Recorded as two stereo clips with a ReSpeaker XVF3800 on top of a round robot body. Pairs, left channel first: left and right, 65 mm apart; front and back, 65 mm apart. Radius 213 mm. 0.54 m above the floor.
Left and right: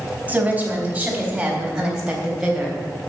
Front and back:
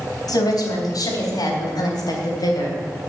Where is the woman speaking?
20° right, 4 m; by 2.8 s straight ahead, 3.5 m.